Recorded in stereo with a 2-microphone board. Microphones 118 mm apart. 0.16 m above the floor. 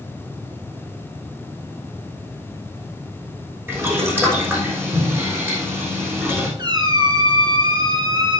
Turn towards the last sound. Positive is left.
turn(degrees=-35)  # may be behind; listen again after turning